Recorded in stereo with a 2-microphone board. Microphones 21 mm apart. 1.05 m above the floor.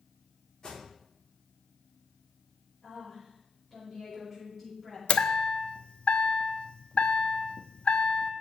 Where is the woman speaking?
5° left (ahead or behind), 5.5 m.